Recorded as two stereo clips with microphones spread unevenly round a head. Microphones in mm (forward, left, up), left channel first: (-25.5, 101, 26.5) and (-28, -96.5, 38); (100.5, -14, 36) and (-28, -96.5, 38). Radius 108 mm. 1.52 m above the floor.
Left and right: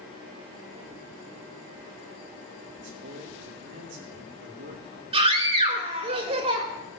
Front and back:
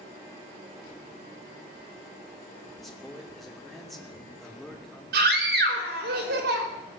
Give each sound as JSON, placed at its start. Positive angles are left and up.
{"t": 2.8, "sound": "a man speaking", "azimuth_deg": -55, "distance_m": 2.5}
{"t": 5.1, "sound": "a scream", "azimuth_deg": -150, "distance_m": 3.5}